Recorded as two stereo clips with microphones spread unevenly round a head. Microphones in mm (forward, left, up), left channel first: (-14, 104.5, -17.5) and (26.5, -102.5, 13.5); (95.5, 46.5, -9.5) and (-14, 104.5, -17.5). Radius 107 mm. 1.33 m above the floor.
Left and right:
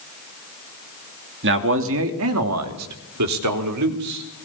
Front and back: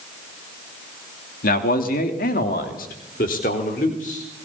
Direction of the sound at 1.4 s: 40° right.